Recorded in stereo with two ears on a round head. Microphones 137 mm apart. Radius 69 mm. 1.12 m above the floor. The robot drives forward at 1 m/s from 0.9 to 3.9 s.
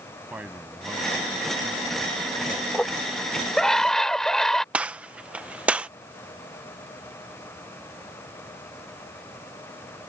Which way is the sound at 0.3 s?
10° right (ahead or behind).